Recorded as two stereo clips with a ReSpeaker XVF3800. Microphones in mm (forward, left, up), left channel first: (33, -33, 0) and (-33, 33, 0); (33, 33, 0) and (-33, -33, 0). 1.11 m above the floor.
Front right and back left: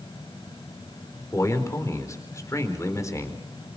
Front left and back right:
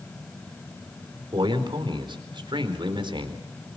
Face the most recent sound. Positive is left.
turn(degrees=-100)